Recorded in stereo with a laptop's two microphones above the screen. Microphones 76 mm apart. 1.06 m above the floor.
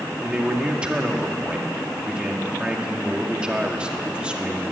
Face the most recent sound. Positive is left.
turn(degrees=-15)  # may be behind; listen again after turning